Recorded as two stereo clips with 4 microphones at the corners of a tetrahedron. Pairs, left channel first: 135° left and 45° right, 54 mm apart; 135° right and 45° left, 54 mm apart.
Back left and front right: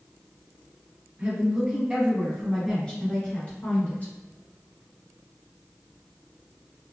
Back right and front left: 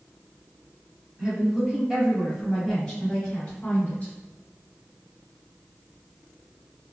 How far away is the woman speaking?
About 1.2 m.